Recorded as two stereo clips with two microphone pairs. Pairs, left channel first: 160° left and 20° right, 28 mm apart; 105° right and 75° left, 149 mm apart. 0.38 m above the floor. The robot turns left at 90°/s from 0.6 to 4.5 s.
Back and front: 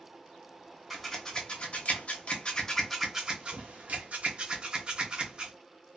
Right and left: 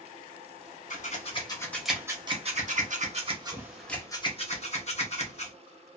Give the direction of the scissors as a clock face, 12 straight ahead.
4 o'clock.